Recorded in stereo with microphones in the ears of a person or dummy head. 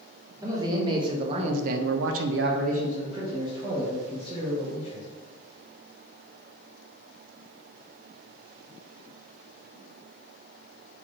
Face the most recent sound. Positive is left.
turn(degrees=-10)  # may be behind; listen again after turning